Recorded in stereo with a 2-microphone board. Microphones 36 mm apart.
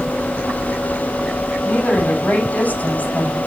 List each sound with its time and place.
1.6 s a woman speaking: 45° left (ahead or behind), 7.5 m